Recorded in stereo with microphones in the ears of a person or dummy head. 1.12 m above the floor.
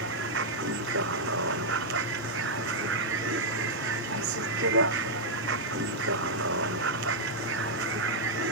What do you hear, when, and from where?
0.0 s a vehicle: 65° right (ahead or behind)